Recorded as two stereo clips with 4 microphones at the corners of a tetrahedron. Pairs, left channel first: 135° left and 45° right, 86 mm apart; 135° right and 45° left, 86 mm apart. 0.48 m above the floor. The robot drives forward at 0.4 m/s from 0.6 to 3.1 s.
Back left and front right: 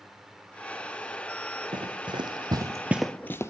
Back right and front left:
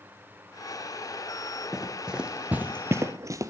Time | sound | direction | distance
1.7 | running footsteps | 40° right | 1.6 m